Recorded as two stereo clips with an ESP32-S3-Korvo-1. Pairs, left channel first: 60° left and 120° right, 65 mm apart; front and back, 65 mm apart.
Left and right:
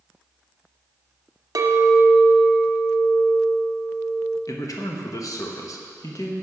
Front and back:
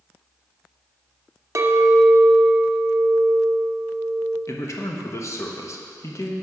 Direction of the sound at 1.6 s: 140° right.